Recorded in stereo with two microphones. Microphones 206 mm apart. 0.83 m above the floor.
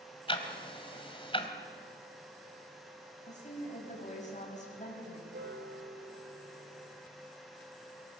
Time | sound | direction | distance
0.3 | ticking | 25° left (ahead or behind) | 1.7 m
3.3 | a woman speaking | 35° left (ahead or behind) | 5.5 m
5.3 | a piano | 65° right (ahead or behind) | 1.6 m